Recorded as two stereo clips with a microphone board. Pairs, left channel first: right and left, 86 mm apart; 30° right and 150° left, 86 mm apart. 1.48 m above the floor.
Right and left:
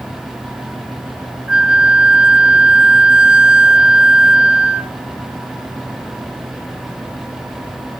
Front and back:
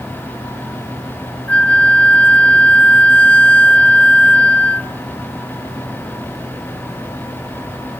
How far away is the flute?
About 0.6 m.